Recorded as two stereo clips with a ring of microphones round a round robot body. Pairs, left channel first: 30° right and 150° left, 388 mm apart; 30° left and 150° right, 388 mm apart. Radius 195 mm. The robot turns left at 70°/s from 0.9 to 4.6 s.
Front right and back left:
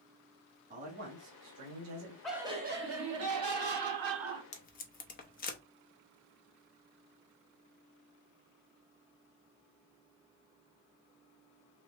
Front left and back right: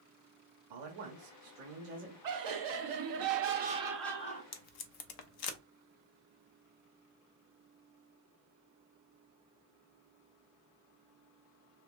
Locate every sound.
0.7 s a man speaking: 140° right, 1.5 m; by 2.1 s 135° left, 1.5 m
2.2 s laughter: 115° right, 1.5 m; by 4.4 s 90° left, 1.5 m
4.5 s tape being pulled: 40° left, 0.7 m; by 5.6 s 35° left, 0.7 m